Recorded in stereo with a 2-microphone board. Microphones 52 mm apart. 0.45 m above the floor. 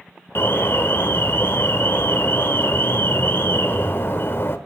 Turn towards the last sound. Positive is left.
turn(degrees=55)  # may be behind; listen again after turning